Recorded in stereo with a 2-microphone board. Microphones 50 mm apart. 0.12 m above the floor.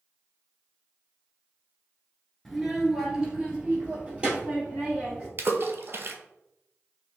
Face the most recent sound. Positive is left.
turn(degrees=-55)  # may be behind; listen again after turning